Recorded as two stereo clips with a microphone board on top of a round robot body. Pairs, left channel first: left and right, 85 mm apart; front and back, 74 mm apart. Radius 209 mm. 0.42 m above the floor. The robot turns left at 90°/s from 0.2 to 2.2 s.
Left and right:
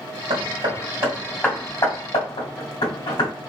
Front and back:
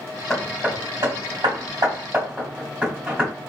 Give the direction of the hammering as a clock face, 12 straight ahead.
3 o'clock.